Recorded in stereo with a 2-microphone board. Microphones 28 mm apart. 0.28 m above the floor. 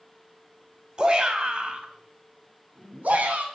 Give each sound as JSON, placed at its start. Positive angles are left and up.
{"t": 1.0, "sound": "a shout", "side_deg": -30, "distance_m": 1.4}